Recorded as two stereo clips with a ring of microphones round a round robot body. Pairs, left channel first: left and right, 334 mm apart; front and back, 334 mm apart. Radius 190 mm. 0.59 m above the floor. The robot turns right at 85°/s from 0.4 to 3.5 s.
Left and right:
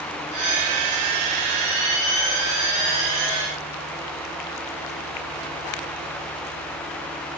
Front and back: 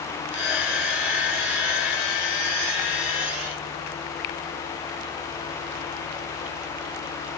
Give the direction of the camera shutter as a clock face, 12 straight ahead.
I don't hear a camera shutter.